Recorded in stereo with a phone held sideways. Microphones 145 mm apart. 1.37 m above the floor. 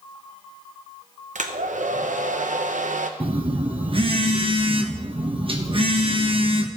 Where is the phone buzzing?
40° right (ahead or behind), 0.8 m.